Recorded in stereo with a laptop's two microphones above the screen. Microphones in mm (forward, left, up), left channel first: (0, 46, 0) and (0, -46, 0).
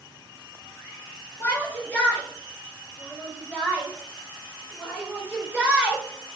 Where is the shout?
20° left (ahead or behind), 5.5 m; by 6.4 s 15° right (ahead or behind), 5 m.